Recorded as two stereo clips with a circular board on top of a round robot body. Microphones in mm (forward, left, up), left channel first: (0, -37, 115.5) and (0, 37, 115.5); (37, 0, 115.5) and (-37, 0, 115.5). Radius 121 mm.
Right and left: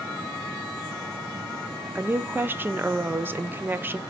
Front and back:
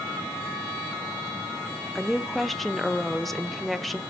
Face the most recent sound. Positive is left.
turn(degrees=85)